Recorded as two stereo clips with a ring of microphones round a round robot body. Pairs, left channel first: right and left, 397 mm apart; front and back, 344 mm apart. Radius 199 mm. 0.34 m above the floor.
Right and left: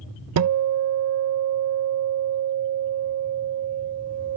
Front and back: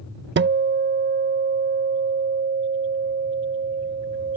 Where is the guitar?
130° left.